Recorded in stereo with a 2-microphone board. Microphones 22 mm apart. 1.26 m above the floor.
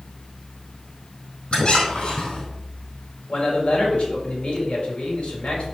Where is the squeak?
50° left (ahead or behind), 3.5 m.